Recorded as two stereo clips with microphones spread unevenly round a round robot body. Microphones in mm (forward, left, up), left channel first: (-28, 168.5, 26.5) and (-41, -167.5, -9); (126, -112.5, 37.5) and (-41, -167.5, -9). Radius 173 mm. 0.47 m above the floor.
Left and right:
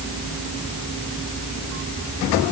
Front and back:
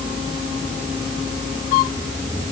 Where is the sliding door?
I don't hear a sliding door.